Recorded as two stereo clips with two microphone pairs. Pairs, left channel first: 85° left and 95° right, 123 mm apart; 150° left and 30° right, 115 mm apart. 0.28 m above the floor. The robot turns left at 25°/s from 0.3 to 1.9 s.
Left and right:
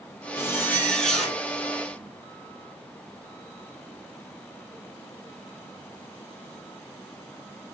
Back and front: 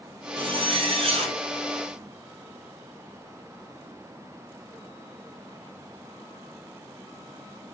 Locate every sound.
0.4 s a zipper: 15° left, 1.3 m; by 1.4 s 10° right, 1.3 m